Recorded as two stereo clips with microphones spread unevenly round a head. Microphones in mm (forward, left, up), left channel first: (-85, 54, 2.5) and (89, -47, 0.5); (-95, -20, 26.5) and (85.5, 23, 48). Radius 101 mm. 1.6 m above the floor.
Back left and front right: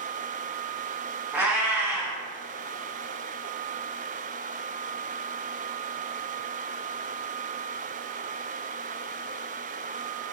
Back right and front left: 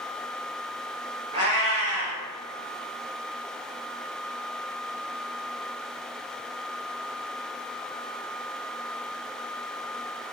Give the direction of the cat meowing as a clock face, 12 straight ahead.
10 o'clock.